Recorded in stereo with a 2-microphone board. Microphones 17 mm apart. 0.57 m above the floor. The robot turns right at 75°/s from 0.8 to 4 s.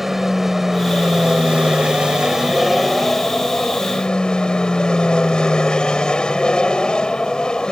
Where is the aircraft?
165° right; by 7.7 s 75° left.